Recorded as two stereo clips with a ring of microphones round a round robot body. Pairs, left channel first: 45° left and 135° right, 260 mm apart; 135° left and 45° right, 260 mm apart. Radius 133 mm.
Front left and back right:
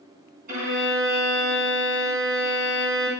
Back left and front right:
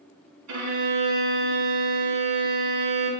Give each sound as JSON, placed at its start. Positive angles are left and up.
{"t": 0.5, "sound": "a violin", "azimuth_deg": -75, "distance_m": 4.5}